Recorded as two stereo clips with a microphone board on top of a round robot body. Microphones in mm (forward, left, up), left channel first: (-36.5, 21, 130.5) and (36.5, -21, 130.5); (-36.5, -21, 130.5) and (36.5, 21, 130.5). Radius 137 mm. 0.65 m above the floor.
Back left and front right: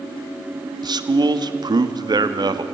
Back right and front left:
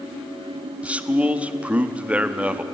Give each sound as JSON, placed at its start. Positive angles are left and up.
{"t": 0.8, "sound": "a man speaking", "azimuth_deg": -40, "distance_m": 1.6}